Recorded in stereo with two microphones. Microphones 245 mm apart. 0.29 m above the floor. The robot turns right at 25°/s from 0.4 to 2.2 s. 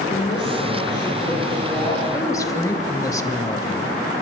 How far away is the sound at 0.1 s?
About 6.5 m.